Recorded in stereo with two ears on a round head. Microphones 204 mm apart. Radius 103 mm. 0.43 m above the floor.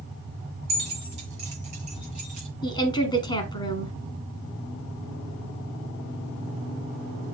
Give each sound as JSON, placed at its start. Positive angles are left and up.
{"t": 0.7, "sound": "keys jangling", "side_deg": -25, "distance_m": 6.0}
{"t": 2.6, "sound": "a woman speaking", "side_deg": 20, "distance_m": 1.6}